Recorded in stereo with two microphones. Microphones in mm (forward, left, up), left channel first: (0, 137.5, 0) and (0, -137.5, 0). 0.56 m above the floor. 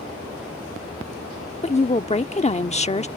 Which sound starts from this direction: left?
A woman speaking, at 1.6 s.